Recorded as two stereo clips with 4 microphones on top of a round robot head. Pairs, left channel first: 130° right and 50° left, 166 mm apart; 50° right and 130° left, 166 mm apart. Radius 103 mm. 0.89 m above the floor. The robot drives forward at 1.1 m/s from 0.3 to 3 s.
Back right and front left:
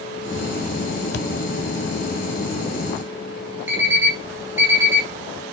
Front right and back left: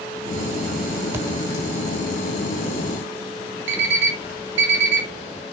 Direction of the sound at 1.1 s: 155° right.